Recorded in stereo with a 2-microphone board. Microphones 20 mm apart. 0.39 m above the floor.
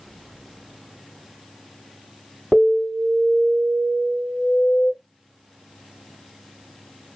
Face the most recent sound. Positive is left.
turn(degrees=30)  # may be behind; listen again after turning